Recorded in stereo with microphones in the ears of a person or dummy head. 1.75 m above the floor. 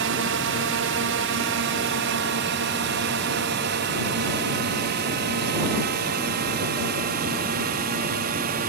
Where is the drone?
60° right (ahead or behind); by 8.7 s 45° right (ahead or behind).